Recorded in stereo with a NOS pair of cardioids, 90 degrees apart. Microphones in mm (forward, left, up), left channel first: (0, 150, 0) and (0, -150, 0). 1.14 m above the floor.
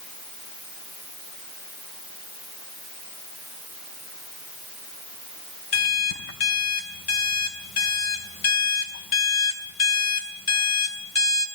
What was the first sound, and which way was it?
An alarm clock, 50° left.